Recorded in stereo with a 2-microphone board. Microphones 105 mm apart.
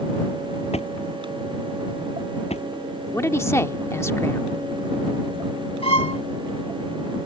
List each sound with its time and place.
0.7 s a drawer: 85° left
3.1 s a man speaking: 25° left (ahead or behind)
5.8 s a violin: 65° left (ahead or behind)